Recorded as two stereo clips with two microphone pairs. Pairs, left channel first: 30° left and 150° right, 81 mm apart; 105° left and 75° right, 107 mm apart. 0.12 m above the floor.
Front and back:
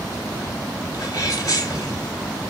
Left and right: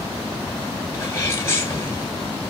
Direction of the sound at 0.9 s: 55° left.